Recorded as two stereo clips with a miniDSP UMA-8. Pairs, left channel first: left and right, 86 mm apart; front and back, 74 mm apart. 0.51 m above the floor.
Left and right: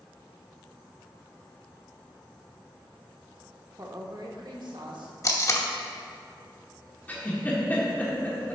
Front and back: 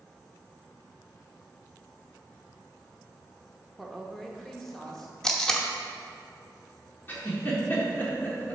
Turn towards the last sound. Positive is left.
turn(degrees=35)